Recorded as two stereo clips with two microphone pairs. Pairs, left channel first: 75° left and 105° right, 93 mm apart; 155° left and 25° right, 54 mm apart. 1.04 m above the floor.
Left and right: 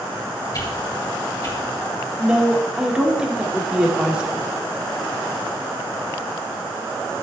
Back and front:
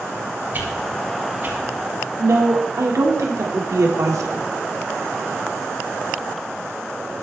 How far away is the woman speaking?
About 2 m.